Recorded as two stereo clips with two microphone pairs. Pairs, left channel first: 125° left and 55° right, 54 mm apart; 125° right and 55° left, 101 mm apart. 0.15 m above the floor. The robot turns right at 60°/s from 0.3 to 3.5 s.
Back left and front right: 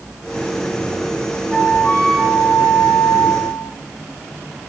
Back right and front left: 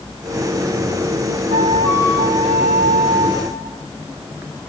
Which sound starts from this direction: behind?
A flute, at 1.5 s.